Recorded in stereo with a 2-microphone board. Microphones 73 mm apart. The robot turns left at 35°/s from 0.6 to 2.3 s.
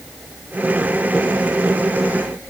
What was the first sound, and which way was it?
Only background noise.